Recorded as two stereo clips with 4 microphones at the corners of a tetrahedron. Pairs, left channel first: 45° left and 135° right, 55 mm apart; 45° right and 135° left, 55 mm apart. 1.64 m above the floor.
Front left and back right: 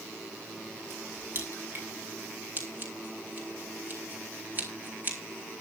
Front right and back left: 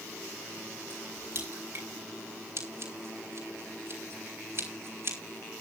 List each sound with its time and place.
0.9 s a crack: 175° left, 7 m
2.6 s scissors: 170° left, 5.5 m